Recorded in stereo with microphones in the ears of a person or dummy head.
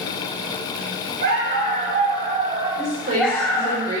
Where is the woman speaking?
50° right (ahead or behind), 4 m.